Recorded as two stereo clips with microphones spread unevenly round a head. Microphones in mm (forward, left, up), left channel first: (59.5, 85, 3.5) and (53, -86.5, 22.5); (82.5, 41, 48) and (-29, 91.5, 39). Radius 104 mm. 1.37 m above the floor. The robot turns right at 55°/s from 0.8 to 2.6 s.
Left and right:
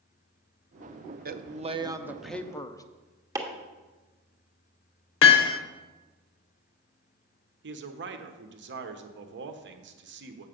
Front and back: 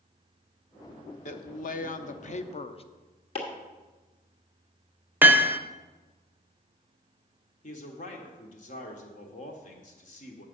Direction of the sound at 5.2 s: 80° left.